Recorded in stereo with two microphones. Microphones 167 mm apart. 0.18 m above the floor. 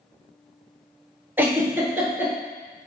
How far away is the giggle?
About 0.8 m.